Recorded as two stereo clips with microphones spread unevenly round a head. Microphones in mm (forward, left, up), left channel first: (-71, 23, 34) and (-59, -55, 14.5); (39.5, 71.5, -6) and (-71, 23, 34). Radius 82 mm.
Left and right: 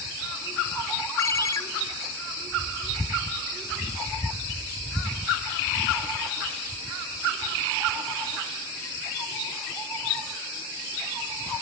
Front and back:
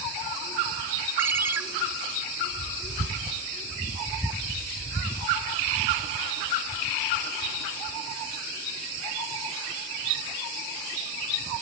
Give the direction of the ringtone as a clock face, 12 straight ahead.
7 o'clock.